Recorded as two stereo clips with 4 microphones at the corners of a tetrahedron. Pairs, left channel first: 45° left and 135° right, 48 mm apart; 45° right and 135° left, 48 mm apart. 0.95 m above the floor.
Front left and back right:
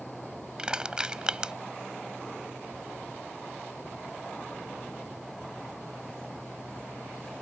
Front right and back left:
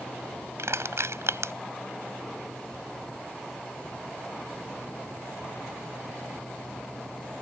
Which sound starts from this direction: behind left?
Crushing, at 0.6 s.